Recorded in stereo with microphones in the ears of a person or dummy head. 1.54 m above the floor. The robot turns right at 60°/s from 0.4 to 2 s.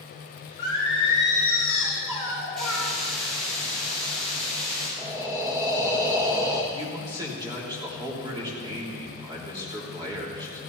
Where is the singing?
105° left, 4.5 m; by 2.9 s 170° right, 4.5 m.